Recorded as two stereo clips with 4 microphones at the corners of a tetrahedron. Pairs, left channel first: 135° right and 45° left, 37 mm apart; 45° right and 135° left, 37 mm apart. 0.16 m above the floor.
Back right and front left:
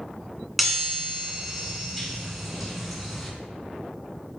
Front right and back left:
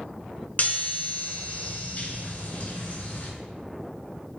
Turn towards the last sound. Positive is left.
turn(degrees=-40)